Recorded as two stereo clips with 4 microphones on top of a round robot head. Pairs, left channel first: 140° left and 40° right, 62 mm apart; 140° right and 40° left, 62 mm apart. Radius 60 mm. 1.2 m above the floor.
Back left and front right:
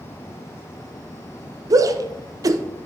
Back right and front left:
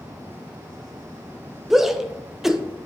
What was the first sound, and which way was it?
A shout, 45° right.